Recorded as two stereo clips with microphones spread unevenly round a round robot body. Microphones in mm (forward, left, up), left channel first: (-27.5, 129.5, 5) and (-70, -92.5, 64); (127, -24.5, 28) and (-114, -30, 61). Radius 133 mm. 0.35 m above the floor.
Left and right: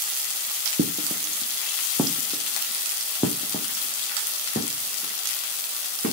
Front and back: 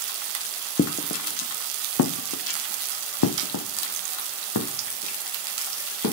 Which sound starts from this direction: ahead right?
Footsteps, at 0.8 s.